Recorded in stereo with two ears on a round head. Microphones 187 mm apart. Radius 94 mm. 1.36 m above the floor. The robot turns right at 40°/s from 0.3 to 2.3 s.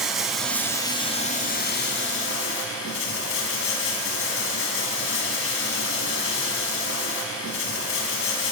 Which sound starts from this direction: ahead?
Running water, at 0.0 s.